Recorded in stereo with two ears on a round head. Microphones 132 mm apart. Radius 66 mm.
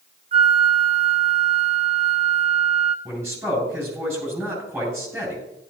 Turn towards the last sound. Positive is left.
turn(degrees=-15)  # may be behind; listen again after turning